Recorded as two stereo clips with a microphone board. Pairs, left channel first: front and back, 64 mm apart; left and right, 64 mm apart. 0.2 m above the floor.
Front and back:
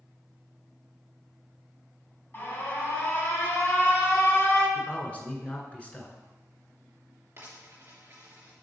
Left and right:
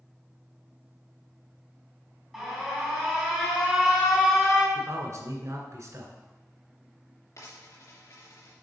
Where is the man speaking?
65° right, 1.9 m.